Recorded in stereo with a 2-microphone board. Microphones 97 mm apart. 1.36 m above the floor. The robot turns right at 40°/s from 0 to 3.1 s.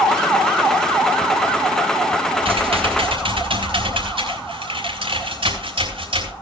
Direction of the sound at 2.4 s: 75° right (ahead or behind).